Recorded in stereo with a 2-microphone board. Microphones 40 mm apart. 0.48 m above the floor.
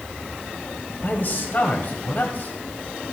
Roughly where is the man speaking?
Left.